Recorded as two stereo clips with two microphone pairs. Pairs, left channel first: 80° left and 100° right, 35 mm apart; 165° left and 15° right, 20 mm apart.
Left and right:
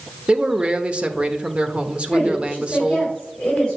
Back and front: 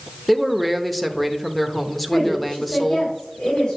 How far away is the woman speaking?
About 4 m.